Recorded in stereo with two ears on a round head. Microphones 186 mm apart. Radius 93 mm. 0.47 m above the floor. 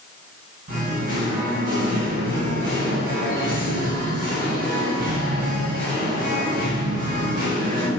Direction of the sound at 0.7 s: 40° right (ahead or behind).